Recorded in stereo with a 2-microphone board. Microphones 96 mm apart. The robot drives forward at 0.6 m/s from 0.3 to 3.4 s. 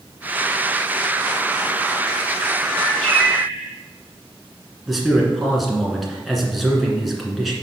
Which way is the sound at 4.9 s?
Centre (ahead or behind).